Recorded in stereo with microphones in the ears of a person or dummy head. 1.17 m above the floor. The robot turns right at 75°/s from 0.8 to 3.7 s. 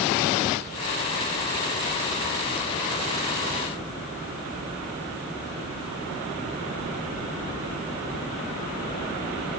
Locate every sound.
Only background noise.